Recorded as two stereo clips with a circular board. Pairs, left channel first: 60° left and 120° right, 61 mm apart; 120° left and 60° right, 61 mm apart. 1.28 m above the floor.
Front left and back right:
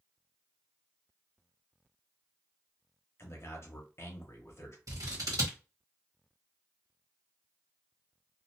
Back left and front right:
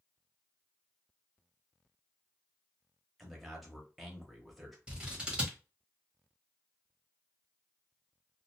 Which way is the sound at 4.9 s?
135° right.